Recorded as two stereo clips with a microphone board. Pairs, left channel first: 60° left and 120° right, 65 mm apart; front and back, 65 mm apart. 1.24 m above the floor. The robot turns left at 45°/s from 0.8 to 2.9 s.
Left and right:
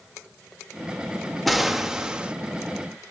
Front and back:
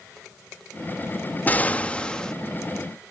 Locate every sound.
1.5 s an explosion: 30° right, 0.5 m; by 2.3 s 70° right, 0.5 m